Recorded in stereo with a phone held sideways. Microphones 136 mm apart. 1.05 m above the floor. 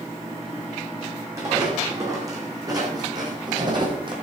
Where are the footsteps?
20° right (ahead or behind), 3.5 m; by 4.1 s 35° right (ahead or behind), 2.5 m.